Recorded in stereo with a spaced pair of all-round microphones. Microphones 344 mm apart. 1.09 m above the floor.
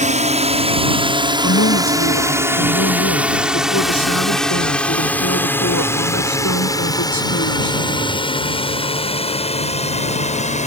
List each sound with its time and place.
0.0 s a drone: 20° right (ahead or behind); by 10.7 s 20° left (ahead or behind)
1.4 s a woman speaking: 55° left (ahead or behind)